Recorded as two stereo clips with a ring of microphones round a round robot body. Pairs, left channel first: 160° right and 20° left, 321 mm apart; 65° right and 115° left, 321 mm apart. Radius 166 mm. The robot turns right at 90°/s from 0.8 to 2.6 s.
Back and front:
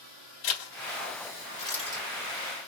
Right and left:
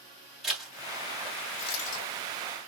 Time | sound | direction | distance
0.4 | a zipper | 160° right | 1.7 m